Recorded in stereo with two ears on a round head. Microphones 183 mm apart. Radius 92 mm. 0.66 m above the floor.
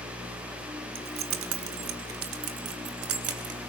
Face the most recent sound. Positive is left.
turn(degrees=-80)